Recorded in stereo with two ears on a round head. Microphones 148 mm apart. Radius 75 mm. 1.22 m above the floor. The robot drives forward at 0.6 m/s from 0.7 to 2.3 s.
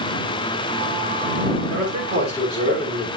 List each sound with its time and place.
1.7 s a man speaking: 35° right (ahead or behind), 6.5 m